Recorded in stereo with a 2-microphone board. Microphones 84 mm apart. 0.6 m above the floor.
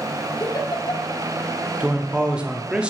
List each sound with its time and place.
0.4 s a giggle: 50° left (ahead or behind), 1.1 m
1.8 s a man speaking: 10° right (ahead or behind), 0.8 m